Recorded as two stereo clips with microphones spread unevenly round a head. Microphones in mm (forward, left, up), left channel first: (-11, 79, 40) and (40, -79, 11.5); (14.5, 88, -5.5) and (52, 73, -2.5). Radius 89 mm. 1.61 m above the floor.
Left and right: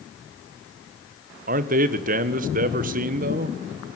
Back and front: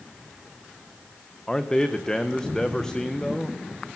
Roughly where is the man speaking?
Behind right.